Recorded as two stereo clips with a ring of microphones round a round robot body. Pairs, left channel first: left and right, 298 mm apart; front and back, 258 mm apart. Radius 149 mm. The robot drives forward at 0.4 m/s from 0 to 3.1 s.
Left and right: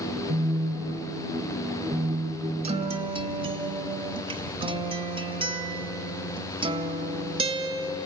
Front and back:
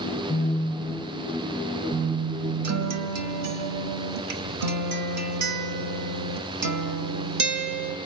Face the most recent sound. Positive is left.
turn(degrees=-160)